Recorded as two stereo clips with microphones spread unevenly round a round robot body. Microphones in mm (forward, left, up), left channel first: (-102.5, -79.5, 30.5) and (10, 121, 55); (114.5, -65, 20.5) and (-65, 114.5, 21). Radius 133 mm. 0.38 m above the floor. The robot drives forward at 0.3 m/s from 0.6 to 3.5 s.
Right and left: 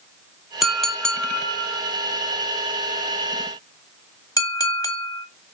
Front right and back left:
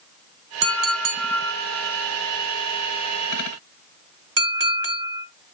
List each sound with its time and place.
0.6 s a clink: 155° left, 0.9 m; by 5.2 s 170° left, 1.7 m